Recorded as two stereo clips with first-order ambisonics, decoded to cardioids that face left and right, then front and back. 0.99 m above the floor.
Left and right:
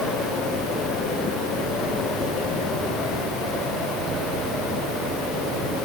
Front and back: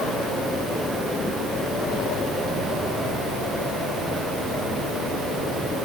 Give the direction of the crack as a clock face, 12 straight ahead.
I don't hear a crack.